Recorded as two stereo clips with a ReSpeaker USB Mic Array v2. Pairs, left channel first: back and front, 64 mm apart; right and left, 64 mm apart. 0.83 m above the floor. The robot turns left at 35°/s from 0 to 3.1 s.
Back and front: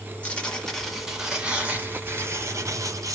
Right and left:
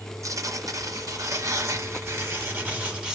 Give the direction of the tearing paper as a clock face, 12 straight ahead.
8 o'clock.